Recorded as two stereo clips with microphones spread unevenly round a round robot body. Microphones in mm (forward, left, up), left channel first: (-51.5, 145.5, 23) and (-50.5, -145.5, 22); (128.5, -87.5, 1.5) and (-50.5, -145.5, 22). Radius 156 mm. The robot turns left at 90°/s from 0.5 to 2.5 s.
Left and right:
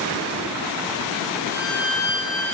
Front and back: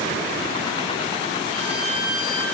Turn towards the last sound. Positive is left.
turn(degrees=105)